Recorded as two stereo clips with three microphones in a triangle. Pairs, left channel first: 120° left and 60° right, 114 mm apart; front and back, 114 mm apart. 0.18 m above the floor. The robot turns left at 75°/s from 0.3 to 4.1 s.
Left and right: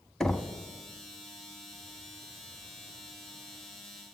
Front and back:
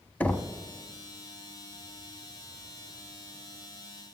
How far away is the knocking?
About 0.7 m.